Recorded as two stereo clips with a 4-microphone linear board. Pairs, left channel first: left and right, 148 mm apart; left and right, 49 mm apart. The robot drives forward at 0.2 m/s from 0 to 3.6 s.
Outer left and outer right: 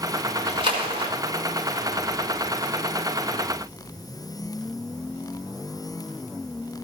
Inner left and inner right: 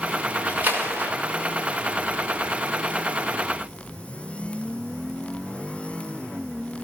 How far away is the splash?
About 1.5 m.